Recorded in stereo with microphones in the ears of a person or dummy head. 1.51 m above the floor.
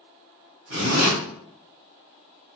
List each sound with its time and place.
0.7 s a zipper: 55° right (ahead or behind), 1.1 m